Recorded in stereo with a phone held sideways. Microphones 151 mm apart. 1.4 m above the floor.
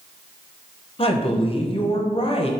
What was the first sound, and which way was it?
A woman speaking, 40° left (ahead or behind).